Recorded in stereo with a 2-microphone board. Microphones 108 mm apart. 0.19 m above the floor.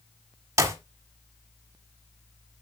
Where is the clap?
25° right (ahead or behind), 1.3 m.